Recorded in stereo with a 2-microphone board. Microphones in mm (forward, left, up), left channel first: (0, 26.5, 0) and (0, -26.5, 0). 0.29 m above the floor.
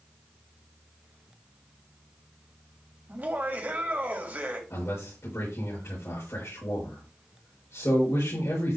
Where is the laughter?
35° right (ahead or behind), 1.9 m.